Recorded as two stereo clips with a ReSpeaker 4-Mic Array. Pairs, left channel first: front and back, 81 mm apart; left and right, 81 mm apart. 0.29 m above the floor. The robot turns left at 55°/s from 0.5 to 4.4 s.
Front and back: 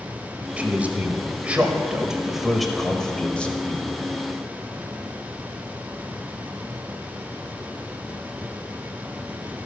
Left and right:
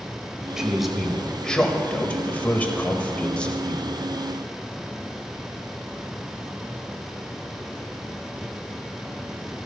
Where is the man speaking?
155° right, 1.1 m; by 3.9 s 20° left, 1.1 m.